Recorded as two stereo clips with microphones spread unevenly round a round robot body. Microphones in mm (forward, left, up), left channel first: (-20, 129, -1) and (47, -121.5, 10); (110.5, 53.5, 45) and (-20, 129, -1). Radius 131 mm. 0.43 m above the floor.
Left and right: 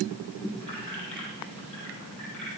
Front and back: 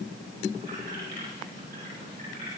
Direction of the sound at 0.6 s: 170° right.